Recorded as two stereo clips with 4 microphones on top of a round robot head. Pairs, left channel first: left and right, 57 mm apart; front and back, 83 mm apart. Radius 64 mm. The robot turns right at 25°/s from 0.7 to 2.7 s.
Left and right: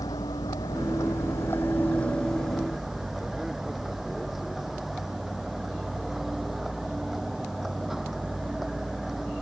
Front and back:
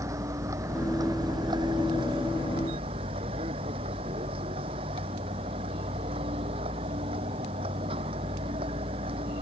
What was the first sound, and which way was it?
A vehicle, 135° left.